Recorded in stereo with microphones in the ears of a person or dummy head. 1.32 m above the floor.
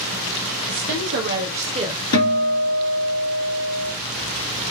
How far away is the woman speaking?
About 1.1 m.